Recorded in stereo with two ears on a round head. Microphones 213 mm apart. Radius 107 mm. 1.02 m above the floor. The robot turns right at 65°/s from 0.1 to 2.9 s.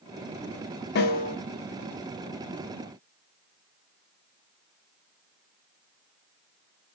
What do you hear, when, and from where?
0.9 s a snare drum: 45° left (ahead or behind), 0.7 m; by 1.4 s 30° left (ahead or behind), 0.7 m